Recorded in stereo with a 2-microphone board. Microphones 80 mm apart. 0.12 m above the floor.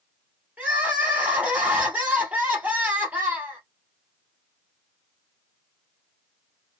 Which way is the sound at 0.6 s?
20° right (ahead or behind).